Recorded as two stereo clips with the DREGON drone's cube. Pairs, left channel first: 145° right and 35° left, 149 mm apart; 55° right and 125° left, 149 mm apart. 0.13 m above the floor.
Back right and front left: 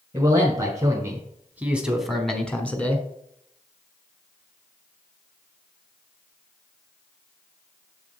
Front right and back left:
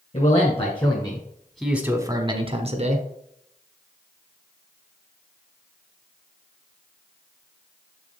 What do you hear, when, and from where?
0.1 s a man speaking: 25° right, 1.8 m; by 3.0 s 140° left, 1.7 m